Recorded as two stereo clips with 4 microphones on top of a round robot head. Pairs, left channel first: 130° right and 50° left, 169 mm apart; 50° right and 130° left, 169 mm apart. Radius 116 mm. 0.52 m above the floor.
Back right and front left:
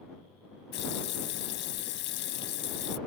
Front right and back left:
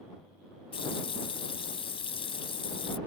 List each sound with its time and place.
0.7 s a running tap: 110° right